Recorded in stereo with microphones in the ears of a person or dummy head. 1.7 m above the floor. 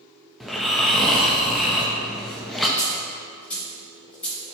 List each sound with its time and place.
0.4 s snoring: 5° left (ahead or behind), 1.1 m
2.8 s a dropped coin: 10° left (ahead or behind), 3.5 m